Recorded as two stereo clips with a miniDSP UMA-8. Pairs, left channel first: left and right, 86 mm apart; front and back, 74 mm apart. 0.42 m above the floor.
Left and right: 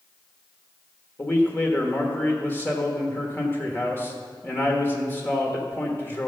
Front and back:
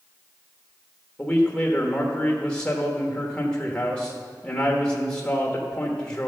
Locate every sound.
1.2 s a man speaking: 60° left, 1.2 m